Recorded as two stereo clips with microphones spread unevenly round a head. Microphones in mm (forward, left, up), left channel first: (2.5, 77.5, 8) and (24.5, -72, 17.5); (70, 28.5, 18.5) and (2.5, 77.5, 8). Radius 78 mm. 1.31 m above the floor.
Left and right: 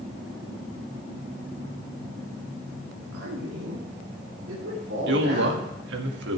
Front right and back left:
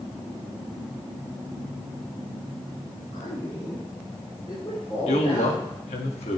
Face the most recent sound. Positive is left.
turn(degrees=-65)